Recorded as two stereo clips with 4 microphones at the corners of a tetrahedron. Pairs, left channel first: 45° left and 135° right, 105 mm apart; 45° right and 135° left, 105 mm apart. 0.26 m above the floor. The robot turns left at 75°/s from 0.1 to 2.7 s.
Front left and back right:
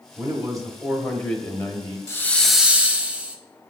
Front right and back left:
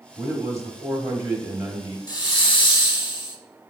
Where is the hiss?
10° right, 0.6 m; by 3.4 s 60° right, 0.6 m.